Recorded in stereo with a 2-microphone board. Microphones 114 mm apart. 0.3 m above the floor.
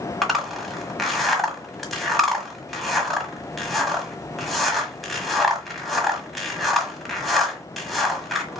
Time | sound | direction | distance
0.2 | a zipper | centre (ahead or behind) | 1.4 m